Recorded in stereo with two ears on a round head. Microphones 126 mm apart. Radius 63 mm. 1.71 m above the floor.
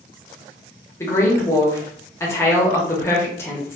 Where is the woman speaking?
20° left (ahead or behind), 0.9 m.